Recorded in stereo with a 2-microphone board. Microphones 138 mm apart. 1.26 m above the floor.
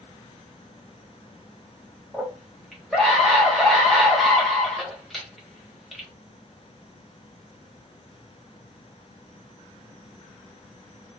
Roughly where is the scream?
Centre.